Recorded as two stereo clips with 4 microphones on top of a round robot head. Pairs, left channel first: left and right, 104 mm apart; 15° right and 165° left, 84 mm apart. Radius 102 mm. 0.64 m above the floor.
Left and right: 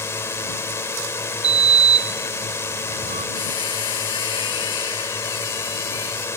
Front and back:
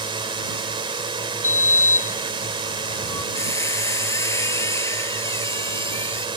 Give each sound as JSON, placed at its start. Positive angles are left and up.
{"t": 0.0, "sound": "a drone", "azimuth_deg": 155}
{"t": 1.4, "sound": "a sliding door", "azimuth_deg": -80}
{"t": 3.4, "sound": "a squeak", "azimuth_deg": 40}